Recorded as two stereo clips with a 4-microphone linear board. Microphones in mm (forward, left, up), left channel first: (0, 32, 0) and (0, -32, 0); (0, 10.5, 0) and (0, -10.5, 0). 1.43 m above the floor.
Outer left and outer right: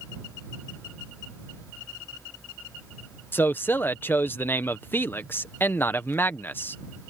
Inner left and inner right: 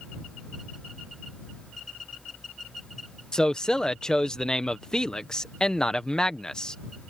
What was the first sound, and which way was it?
A man speaking, 35° left (ahead or behind).